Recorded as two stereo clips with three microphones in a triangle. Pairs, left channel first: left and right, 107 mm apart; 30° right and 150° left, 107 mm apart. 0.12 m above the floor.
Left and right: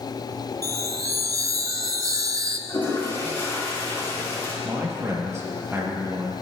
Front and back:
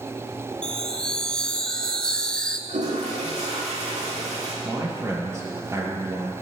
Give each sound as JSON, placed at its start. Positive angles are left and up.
{"t": 0.6, "sound": "a chime", "azimuth_deg": -105, "distance_m": 0.6}
{"t": 2.7, "sound": "a toilet flushing", "azimuth_deg": 150, "distance_m": 3.0}
{"t": 4.6, "sound": "a man speaking", "azimuth_deg": -150, "distance_m": 2.5}